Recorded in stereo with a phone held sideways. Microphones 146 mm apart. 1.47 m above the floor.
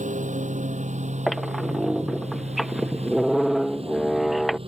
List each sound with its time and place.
0.0 s a lawn mower: 60° right (ahead or behind); by 4.7 s 40° right (ahead or behind)
1.3 s a squeak: centre (ahead or behind)